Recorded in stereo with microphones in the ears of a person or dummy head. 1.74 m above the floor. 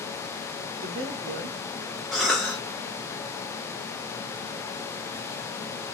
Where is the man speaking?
70° right (ahead or behind), 0.9 m.